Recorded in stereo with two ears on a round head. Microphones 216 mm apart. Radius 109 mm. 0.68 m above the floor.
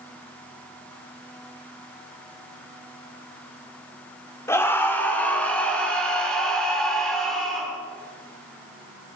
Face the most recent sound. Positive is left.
turn(degrees=0)  # may be behind; listen again after turning